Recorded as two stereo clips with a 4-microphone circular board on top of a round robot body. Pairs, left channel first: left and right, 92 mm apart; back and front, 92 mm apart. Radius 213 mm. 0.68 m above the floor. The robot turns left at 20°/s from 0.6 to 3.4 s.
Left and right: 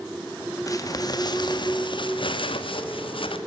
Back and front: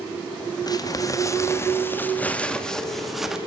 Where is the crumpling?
140° left, 1.9 m; by 3.4 s 85° left, 1.9 m.